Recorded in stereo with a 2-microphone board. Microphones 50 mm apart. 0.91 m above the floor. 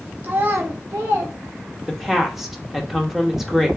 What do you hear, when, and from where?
0.2 s a child speaking: 35° right (ahead or behind), 0.8 m; by 2.2 s 65° right (ahead or behind), 1.1 m
1.9 s a woman speaking: 5° right (ahead or behind), 1.0 m